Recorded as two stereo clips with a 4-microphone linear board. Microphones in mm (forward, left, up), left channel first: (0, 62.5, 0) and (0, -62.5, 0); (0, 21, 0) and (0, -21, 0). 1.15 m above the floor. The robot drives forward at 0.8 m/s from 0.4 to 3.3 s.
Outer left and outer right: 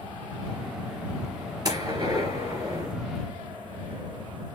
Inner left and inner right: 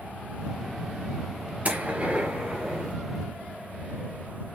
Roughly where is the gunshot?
Right.